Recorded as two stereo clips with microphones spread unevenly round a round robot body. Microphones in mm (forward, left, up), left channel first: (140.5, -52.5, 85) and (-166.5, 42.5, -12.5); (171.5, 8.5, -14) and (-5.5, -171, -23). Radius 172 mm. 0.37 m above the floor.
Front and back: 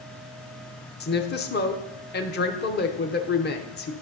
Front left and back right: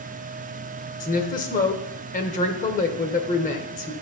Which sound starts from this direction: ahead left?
A woman speaking, at 1.0 s.